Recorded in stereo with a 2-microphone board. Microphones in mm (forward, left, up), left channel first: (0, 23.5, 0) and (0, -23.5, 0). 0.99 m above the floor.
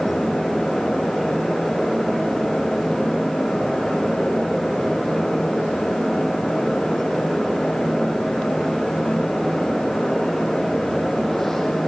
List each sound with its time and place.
Only background noise.